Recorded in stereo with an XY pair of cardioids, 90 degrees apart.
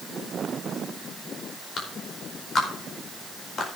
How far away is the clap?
About 4.5 m.